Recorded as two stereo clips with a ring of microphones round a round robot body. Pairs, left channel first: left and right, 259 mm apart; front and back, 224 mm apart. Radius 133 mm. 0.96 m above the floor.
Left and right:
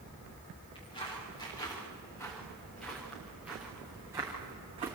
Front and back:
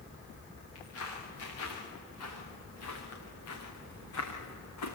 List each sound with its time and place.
0.8 s footsteps: 20° left, 8.5 m; by 5.0 s 20° right, 5.5 m